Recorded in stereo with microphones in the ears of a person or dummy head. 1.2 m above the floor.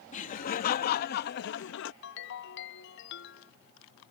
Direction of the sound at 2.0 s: 65° left (ahead or behind).